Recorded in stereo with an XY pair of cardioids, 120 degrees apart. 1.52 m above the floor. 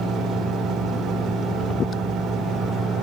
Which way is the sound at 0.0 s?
65° right.